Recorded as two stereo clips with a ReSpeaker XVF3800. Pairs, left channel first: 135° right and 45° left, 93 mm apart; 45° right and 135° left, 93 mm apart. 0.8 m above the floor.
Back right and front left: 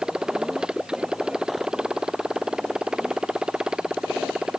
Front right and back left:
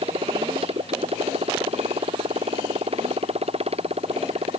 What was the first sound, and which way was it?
A motorcycle, 130° left.